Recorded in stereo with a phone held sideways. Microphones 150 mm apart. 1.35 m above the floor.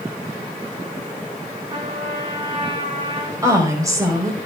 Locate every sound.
1.7 s a trumpet: 40° right (ahead or behind), 5 m
3.4 s a woman speaking: 20° right (ahead or behind), 5.5 m